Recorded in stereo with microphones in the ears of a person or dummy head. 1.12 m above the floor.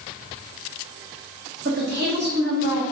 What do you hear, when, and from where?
1.6 s a woman speaking: 55° right (ahead or behind), 1.1 m